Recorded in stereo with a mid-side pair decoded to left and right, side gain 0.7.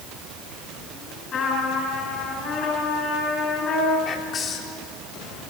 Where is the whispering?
35° left, 3 m.